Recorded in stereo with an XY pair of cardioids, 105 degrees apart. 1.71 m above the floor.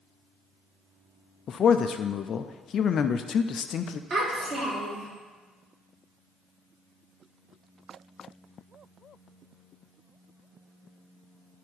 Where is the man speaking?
55° left, 0.5 m.